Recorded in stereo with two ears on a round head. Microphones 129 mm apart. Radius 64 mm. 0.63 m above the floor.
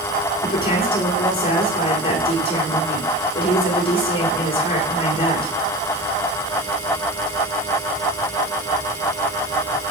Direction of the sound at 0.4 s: 40° left (ahead or behind).